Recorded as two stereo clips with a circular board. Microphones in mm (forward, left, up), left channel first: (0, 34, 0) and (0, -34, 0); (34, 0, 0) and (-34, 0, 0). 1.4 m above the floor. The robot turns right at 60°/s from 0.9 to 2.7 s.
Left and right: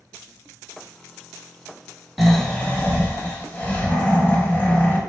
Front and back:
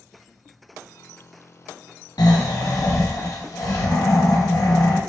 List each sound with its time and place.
2.2 s snoring: 5° right, 0.9 m; by 5.0 s 25° left, 0.9 m